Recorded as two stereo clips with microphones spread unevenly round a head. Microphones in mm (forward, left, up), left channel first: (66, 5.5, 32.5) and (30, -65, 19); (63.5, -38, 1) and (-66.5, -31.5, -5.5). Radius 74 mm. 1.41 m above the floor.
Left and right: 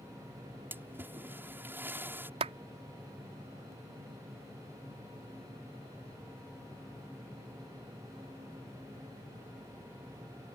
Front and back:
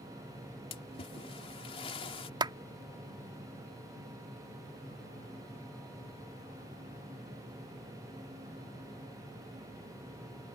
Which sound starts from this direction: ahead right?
A splash, at 0.7 s.